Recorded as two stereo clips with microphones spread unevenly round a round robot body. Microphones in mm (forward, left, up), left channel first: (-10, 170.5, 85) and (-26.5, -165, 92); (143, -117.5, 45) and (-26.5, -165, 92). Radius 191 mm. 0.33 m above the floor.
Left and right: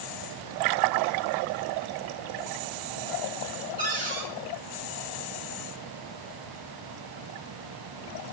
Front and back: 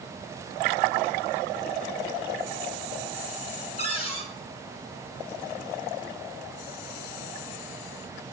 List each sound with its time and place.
3.8 s a cupboard door: 25° right, 2.5 m